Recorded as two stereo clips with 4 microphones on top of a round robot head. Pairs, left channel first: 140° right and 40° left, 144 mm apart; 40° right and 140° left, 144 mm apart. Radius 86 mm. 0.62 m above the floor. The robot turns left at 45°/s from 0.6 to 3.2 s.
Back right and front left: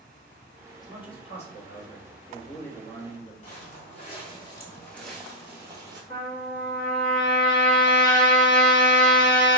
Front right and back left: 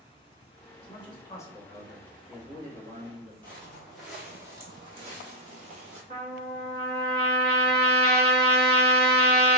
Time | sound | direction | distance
0.8 | a man speaking | 80° right | 1.1 m
3.4 | footsteps | 115° right | 0.9 m
6.1 | a trumpet | 170° left | 1.1 m